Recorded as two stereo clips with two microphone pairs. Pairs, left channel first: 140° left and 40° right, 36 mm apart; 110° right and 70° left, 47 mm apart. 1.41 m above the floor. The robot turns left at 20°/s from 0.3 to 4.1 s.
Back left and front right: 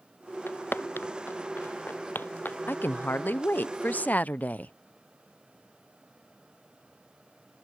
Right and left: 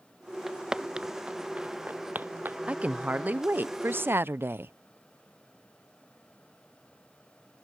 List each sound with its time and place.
0.5 s footsteps: 155° left; by 2.6 s 115° left
2.7 s a woman speaking: 135° left; by 4.7 s 105° left